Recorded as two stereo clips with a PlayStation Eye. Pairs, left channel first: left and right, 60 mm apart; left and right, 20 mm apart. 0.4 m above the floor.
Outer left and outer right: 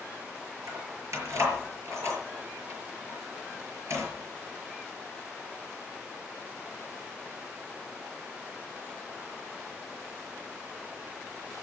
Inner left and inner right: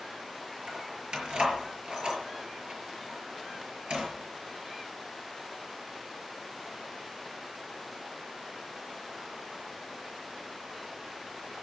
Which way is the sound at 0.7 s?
60° right (ahead or behind).